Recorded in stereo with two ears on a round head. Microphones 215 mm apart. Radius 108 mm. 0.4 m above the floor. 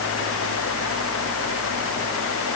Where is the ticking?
No ticking in this recording.